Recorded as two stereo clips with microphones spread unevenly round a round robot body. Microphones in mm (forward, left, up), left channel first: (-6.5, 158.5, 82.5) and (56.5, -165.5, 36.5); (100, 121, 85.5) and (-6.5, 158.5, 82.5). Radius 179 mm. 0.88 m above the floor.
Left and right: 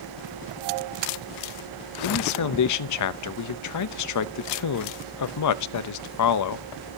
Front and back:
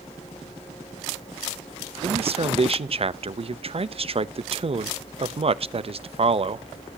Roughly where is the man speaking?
Behind left.